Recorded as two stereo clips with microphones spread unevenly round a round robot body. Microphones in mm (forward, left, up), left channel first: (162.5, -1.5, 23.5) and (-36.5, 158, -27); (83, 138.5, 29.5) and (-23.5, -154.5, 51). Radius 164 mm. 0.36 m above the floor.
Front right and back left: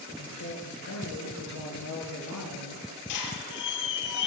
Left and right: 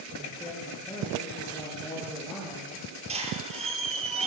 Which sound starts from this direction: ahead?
A man speaking, at 0.2 s.